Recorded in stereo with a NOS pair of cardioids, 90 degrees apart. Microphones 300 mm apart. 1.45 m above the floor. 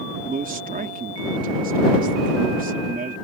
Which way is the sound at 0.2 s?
30° right.